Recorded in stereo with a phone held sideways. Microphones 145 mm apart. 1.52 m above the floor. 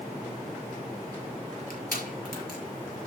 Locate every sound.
1.7 s crushing: 90° left, 5 m